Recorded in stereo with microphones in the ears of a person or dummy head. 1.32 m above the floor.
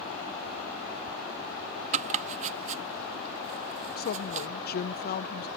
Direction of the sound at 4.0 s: 40° left (ahead or behind).